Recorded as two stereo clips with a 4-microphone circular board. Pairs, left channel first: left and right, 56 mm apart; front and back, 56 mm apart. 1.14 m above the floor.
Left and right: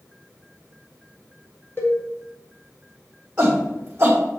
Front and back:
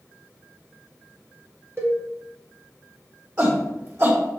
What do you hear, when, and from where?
1.8 s a cowbell: 135° left, 1.8 m
3.4 s a shout: 150° right, 1.9 m